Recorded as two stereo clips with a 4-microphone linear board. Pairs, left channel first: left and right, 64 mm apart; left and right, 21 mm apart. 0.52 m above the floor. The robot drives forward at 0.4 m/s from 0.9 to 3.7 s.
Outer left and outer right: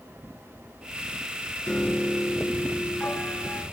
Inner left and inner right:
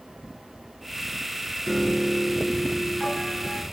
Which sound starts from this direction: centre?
A piano, at 1.7 s.